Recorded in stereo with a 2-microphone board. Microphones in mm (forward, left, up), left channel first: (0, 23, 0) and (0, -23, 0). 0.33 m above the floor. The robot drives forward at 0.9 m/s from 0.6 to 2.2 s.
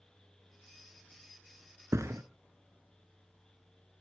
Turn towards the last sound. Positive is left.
turn(degrees=-75)  # may be behind; listen again after turning